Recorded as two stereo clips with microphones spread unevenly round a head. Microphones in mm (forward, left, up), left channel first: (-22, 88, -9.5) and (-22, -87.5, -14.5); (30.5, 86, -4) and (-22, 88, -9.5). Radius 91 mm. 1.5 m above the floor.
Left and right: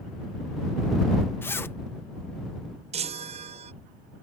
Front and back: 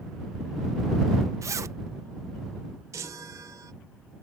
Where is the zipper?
165° left.